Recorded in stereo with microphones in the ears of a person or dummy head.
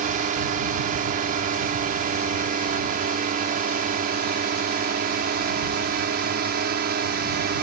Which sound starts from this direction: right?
A drone, at 0.0 s.